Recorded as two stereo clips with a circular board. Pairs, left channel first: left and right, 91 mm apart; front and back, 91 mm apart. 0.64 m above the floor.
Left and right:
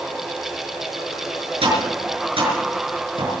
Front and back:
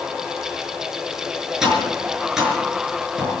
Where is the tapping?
95° right, 6.5 m.